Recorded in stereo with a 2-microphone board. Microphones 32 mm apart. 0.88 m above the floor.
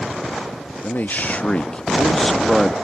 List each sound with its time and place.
0.8 s a man speaking: 65° left (ahead or behind); by 2.8 s 5° right (ahead or behind)